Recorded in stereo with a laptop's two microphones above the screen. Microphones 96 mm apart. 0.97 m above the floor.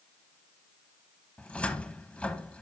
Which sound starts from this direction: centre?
A cupboard door, at 1.4 s.